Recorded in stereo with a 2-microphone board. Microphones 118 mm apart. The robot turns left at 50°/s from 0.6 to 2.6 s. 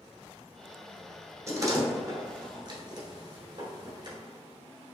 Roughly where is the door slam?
Right.